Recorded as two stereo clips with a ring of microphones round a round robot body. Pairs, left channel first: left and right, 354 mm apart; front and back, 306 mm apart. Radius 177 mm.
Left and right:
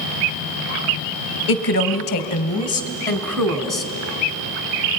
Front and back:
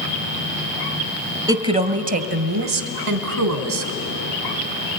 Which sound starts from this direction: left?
A woman speaking, at 1.5 s.